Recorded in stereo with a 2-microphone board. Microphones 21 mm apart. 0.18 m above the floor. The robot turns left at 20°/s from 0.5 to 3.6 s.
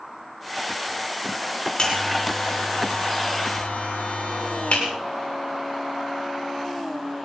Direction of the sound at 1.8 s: 40° left (ahead or behind).